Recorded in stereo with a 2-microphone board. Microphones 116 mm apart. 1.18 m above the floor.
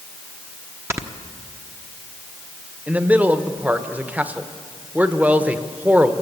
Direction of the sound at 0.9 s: 20° right (ahead or behind).